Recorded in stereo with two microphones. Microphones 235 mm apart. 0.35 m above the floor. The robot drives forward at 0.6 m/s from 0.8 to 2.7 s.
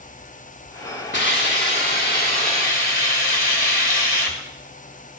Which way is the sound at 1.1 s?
50° left (ahead or behind).